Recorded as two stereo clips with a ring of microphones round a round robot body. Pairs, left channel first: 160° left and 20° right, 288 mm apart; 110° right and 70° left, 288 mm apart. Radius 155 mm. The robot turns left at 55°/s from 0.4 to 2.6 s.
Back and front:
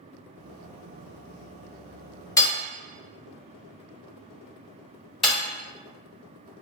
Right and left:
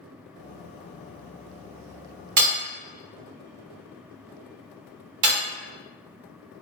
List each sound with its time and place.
2.4 s hammering: 80° left, 0.8 m; by 5.4 s 70° left, 0.8 m